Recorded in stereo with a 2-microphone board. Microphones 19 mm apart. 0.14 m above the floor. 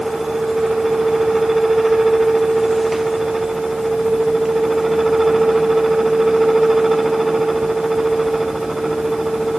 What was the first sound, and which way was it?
Only background noise.